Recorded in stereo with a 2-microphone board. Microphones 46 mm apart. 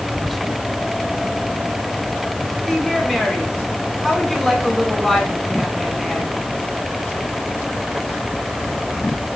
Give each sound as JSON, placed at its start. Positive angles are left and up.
{"t": 0.1, "sound": "whispering", "side_deg": 0, "distance_m": 0.9}
{"t": 2.6, "sound": "a woman speaking", "side_deg": 5, "distance_m": 4.0}